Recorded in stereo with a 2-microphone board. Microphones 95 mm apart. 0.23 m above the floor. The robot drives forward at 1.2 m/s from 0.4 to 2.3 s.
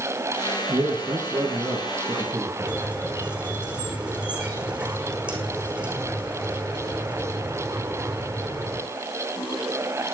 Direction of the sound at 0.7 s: 45° right (ahead or behind).